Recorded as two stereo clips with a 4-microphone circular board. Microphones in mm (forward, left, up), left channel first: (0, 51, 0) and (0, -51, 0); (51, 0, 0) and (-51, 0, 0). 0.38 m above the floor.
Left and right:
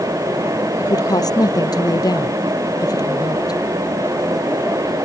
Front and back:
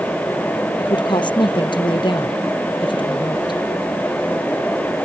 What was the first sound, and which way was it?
A woman speaking, 40° left.